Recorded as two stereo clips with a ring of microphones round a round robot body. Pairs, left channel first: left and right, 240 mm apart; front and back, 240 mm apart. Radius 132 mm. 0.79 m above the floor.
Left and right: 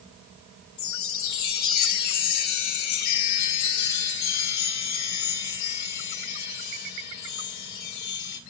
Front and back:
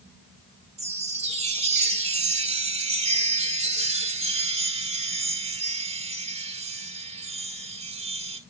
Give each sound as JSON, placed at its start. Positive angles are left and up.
{"t": 0.8, "sound": "a chime", "azimuth_deg": 115, "distance_m": 1.5}